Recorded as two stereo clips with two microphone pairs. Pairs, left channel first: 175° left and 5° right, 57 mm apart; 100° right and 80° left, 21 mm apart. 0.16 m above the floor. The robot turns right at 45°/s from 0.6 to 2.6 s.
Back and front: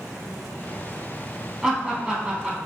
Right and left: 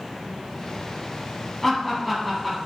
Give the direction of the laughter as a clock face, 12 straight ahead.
2 o'clock.